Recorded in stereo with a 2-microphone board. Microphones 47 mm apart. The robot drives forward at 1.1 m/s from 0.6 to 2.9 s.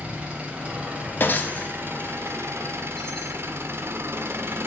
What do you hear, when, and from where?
0.0 s an engine running: 25° right (ahead or behind), 2.5 m; by 4.7 s 60° right (ahead or behind), 1.2 m
1.2 s breaking glass: 45° left (ahead or behind), 1.1 m; by 3.4 s 15° left (ahead or behind), 2.5 m